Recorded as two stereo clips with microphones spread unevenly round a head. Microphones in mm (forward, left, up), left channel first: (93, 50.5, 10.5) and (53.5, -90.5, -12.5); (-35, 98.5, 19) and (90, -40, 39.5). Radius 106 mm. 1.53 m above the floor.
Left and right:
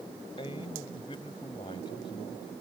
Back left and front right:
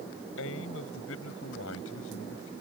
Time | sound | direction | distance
0.4 | a man speaking | 140° left | ?